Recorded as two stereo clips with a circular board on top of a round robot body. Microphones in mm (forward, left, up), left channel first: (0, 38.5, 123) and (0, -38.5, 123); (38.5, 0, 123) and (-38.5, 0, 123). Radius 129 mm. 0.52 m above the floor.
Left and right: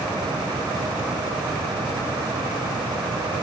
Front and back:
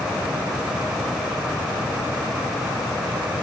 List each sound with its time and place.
Only background noise.